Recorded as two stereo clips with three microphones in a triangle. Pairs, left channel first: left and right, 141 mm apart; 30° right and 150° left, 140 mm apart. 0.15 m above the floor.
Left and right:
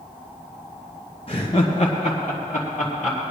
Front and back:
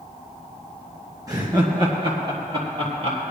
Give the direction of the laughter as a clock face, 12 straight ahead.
9 o'clock.